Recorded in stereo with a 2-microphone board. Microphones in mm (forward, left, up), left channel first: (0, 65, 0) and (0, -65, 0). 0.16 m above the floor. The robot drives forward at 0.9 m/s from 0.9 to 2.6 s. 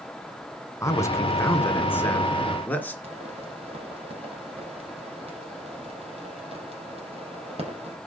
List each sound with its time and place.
0.8 s a man speaking: 20° left (ahead or behind), 1.4 m; by 2.9 s 15° left (ahead or behind), 2.5 m
3.0 s a pop: 45° right (ahead or behind), 6 m